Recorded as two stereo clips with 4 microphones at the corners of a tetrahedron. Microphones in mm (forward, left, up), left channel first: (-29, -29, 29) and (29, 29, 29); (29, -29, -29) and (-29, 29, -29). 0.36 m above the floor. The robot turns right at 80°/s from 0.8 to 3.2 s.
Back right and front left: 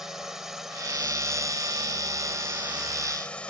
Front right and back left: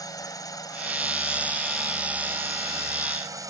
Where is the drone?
40° right; by 3.5 s 155° left.